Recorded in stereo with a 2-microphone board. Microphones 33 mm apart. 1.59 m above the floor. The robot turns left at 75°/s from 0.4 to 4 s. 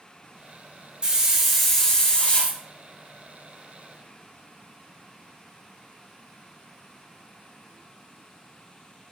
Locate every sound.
1.0 s a hiss: 140° right, 0.7 m; by 2.6 s 105° left, 0.7 m